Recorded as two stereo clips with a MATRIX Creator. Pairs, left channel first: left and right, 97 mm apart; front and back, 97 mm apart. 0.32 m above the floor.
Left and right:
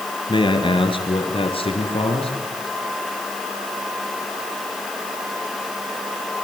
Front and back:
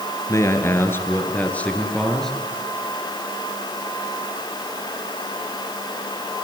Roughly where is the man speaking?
Ahead left.